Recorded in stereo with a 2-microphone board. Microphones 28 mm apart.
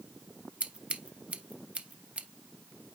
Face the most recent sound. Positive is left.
turn(degrees=-45)  # may be behind; listen again after turning